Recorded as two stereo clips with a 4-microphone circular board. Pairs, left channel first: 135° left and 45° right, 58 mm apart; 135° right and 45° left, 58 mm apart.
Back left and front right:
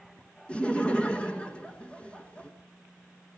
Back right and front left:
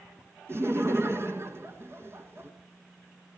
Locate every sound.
0.5 s laughter: 70° left, 2.5 m